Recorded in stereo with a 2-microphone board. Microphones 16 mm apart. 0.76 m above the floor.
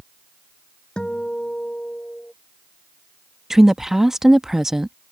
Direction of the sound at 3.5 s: 25° right (ahead or behind).